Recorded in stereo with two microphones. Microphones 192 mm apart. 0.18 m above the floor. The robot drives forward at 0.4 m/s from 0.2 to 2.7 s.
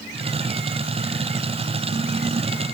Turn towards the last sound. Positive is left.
No sound to turn to.